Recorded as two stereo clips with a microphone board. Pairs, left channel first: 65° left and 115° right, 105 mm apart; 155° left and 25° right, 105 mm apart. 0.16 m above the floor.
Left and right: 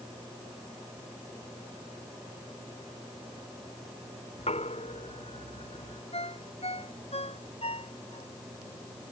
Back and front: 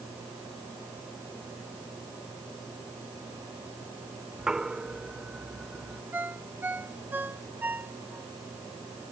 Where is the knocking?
60° left.